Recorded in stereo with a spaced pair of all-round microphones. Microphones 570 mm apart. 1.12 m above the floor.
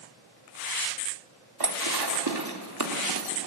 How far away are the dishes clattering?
About 2 m.